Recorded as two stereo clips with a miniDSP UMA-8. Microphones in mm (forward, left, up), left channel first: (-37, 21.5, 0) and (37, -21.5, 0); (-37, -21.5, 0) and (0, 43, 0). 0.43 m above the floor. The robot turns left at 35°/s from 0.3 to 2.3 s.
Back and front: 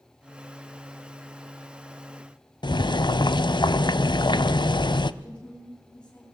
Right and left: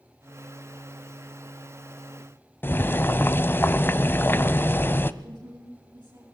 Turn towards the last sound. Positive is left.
turn(degrees=75)